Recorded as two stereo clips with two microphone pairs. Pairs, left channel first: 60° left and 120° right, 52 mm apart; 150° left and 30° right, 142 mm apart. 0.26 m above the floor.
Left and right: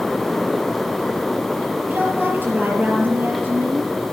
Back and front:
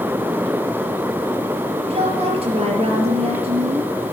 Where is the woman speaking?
70° right, 6 m.